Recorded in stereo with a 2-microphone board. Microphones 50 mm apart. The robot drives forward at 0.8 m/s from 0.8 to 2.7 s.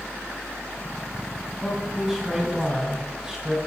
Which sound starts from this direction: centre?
A man speaking, at 1.6 s.